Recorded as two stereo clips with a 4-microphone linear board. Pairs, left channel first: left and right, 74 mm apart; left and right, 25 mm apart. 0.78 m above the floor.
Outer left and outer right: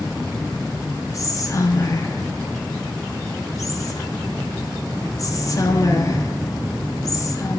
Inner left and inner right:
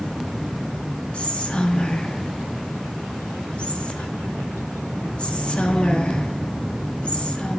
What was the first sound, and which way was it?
Whispering, 45° left (ahead or behind).